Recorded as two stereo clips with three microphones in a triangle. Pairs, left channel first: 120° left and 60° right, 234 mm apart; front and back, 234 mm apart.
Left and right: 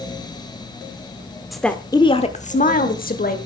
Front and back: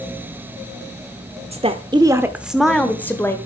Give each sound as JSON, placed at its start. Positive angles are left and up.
{"t": 1.5, "sound": "a woman speaking", "azimuth_deg": -150, "distance_m": 0.9}